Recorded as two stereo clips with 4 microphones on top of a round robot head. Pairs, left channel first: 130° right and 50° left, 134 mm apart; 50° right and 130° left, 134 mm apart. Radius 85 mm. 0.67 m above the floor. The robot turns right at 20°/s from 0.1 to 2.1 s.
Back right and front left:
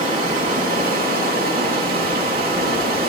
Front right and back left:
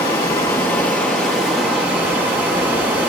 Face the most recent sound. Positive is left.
turn(degrees=55)